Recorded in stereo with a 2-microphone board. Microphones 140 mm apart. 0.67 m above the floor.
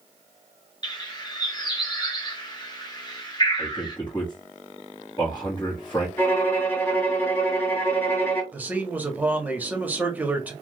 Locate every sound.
0.8 s a bird: 30° left (ahead or behind), 0.9 m
3.6 s a man speaking: 35° left (ahead or behind), 0.9 m
6.2 s a violin: 15° left (ahead or behind), 1.8 m
8.5 s a man speaking: 10° right (ahead or behind), 1.0 m